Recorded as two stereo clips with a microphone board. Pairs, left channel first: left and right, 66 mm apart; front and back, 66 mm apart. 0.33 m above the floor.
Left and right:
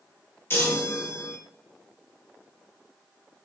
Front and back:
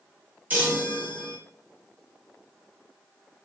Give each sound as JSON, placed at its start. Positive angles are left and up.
{"t": 0.5, "sound": "a chime", "azimuth_deg": 130, "distance_m": 1.1}